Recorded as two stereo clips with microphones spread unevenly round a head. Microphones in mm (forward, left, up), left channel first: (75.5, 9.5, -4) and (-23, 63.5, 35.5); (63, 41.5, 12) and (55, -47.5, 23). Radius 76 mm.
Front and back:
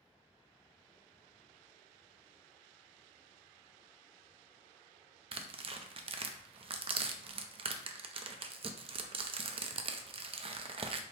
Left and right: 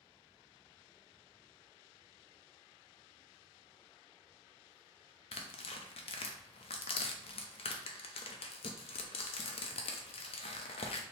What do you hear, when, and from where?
5.3 s tearing paper: 105° left, 0.5 m